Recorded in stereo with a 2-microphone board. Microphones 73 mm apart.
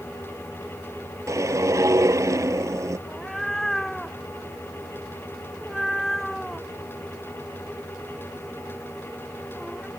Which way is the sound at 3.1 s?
5° left (ahead or behind).